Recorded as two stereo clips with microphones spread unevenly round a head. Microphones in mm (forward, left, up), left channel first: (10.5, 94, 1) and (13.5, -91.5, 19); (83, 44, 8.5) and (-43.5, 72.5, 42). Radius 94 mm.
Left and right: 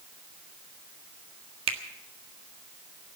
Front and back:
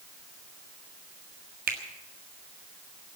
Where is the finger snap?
150° right, 1.6 m.